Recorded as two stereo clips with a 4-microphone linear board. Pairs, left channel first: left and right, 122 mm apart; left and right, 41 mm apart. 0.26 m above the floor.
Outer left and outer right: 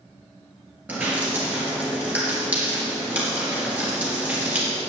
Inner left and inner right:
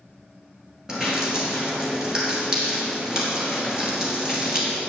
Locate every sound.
0.9 s dripping: 15° right (ahead or behind), 3.5 m